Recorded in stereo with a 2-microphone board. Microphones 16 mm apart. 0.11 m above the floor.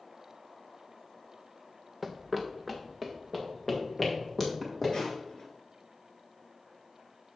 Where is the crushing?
55° left (ahead or behind), 2.5 m.